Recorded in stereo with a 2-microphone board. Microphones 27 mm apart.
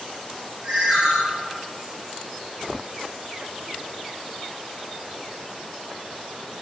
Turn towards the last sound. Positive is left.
turn(degrees=-35)  # may be behind; listen again after turning